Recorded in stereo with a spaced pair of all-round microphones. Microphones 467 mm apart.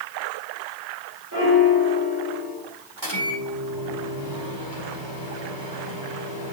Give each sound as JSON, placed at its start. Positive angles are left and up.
{"t": 1.3, "sound": "a piano", "side_deg": -45, "distance_m": 3.5}
{"t": 3.0, "sound": "a microwave", "side_deg": -65, "distance_m": 3.0}